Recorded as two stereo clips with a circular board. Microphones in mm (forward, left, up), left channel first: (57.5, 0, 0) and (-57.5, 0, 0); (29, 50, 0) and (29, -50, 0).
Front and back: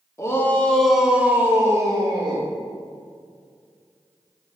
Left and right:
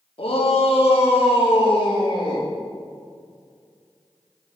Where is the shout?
65° left, 1.8 m; by 2.5 s 135° left, 2.5 m.